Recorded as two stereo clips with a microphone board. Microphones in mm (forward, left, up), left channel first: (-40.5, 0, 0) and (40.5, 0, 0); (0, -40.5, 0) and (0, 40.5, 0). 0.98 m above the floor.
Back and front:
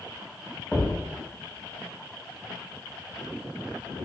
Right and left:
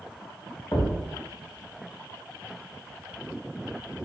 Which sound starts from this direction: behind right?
A thud, at 0.7 s.